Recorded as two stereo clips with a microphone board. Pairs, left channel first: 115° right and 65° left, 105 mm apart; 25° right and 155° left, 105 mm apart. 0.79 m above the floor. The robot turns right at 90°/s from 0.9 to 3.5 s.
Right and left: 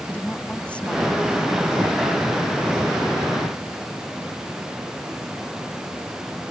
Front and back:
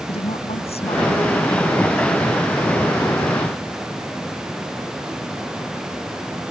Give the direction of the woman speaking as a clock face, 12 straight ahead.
1 o'clock.